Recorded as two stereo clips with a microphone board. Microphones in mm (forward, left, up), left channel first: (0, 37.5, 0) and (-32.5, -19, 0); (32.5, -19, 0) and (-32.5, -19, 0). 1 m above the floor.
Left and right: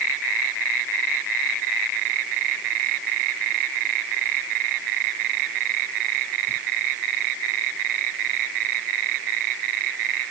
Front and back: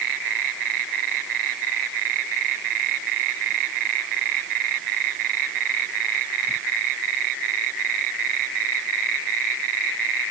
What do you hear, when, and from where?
Only background noise.